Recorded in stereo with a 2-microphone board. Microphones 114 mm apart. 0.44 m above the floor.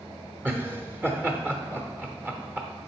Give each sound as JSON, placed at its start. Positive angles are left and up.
{"t": 0.5, "sound": "laughter", "side_deg": -15, "distance_m": 0.8}